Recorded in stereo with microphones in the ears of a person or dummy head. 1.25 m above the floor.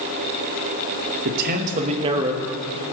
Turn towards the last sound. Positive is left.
turn(degrees=-15)  # may be behind; listen again after turning